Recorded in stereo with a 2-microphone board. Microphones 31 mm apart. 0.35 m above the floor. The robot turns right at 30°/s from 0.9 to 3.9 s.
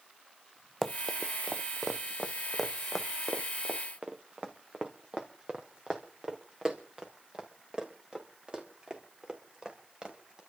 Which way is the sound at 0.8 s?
5° left (ahead or behind).